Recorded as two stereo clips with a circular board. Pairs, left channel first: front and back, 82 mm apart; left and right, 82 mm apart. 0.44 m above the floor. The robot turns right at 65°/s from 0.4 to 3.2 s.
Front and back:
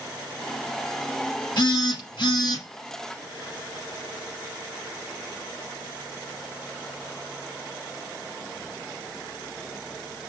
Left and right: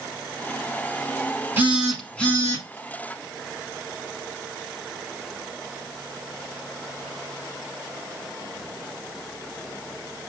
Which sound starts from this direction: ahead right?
A phone buzzing, at 1.6 s.